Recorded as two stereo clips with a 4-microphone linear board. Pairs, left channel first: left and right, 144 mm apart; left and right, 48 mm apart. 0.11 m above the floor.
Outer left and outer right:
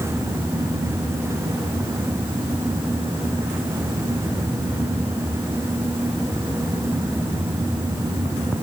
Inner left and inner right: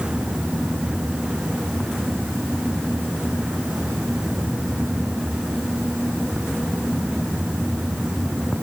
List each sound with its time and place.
Only background noise.